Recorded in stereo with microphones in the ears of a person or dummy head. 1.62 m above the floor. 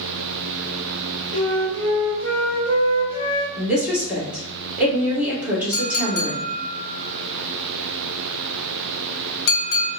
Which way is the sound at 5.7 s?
60° left (ahead or behind).